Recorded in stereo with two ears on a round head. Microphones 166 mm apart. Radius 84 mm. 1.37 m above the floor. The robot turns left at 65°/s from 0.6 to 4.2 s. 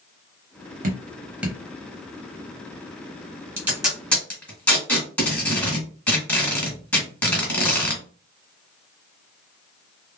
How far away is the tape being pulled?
About 1.4 m.